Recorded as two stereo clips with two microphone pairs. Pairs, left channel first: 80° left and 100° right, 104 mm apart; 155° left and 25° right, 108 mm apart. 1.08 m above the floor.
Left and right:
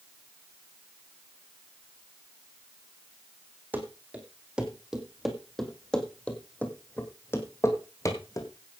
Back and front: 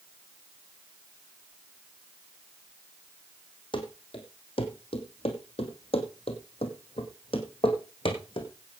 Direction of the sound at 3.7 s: 175° right.